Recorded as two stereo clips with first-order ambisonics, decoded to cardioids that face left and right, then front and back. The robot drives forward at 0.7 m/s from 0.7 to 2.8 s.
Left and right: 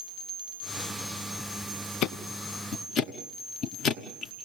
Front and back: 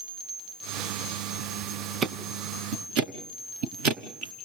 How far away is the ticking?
About 0.8 m.